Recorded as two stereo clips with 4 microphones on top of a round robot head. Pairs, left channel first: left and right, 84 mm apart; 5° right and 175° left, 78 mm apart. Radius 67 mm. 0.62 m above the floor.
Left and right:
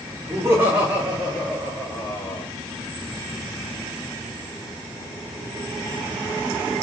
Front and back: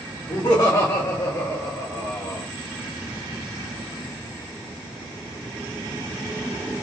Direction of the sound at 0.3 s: 50° right.